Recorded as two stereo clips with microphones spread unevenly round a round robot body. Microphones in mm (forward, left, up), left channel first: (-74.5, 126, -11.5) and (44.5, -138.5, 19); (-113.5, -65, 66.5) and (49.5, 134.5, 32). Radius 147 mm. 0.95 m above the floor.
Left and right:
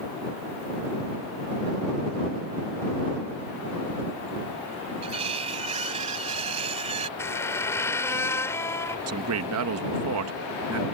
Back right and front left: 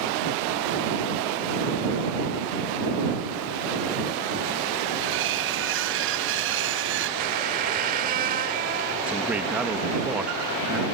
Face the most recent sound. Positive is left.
turn(degrees=-30)